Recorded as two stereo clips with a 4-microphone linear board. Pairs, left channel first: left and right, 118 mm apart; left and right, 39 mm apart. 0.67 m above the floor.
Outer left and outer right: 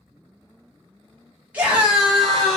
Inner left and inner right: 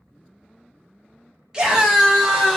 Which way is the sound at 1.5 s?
15° right (ahead or behind).